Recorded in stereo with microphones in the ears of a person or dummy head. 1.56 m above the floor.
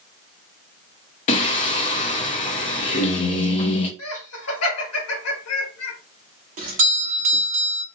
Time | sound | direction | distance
1.3 | singing | 40° left (ahead or behind) | 0.6 m
4.0 | laughter | 85° left | 1.2 m
6.6 | a doorbell | 40° right (ahead or behind) | 0.5 m